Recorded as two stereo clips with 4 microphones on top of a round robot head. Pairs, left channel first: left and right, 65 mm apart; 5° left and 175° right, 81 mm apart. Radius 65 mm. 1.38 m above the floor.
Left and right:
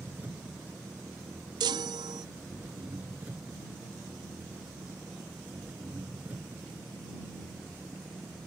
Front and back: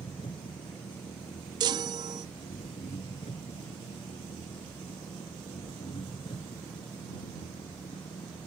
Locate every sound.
0.0 s an engine running: 25° right
1.6 s a chime: 125° right